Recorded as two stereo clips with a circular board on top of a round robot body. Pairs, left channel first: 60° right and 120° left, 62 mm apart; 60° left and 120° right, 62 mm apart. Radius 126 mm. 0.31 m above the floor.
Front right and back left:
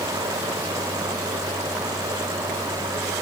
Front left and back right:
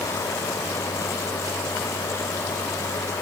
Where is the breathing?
No breathing in this recording.